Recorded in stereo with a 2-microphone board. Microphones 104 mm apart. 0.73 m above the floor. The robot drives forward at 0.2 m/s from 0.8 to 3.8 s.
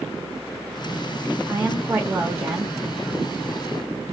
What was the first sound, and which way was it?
A woman speaking, 20° right (ahead or behind).